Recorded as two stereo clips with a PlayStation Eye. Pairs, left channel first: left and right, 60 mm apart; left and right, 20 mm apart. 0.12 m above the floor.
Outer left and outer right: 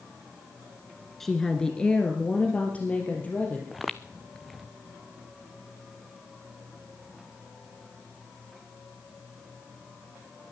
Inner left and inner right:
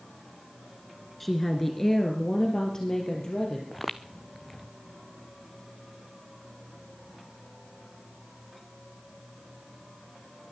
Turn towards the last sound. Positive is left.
turn(degrees=0)  # may be behind; listen again after turning